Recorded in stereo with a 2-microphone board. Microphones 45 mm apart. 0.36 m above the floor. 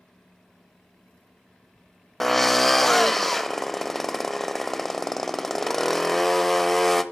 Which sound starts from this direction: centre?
A drill, at 2.2 s.